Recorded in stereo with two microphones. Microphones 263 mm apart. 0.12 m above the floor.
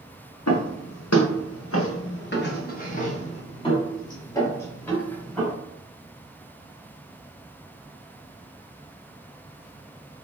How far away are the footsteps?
About 1.7 m.